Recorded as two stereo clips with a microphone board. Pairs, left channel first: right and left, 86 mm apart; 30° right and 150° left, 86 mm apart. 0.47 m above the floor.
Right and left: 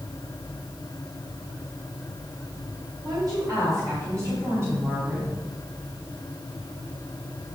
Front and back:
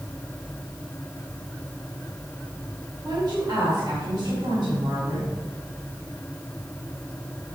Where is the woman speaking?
120° left, 3 m; by 5.3 s 150° left, 3.5 m.